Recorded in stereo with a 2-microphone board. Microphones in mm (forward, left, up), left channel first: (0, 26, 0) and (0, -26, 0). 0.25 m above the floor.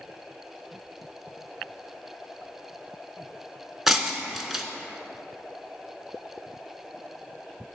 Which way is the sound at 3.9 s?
5° right (ahead or behind).